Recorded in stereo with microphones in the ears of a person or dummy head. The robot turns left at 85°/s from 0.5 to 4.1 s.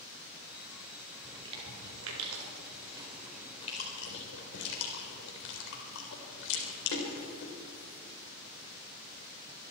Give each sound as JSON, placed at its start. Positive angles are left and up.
{"t": 1.2, "sound": "chewing", "side_deg": -10, "distance_m": 4.0}